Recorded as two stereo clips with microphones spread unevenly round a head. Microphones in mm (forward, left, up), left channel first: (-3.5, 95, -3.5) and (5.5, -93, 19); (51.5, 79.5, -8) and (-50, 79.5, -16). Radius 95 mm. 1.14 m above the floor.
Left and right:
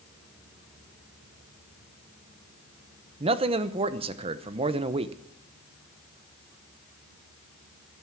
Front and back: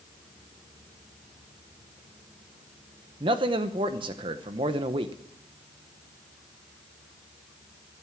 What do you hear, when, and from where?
3.2 s a man speaking: 150° right, 0.8 m